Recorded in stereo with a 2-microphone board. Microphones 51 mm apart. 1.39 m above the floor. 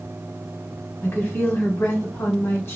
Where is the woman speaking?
50° left (ahead or behind), 1.0 m.